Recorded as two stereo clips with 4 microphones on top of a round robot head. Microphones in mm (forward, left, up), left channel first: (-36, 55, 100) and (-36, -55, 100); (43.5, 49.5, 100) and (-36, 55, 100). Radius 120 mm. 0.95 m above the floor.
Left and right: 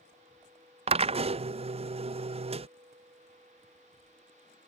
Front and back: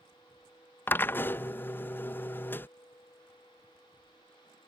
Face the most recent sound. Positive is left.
turn(degrees=-70)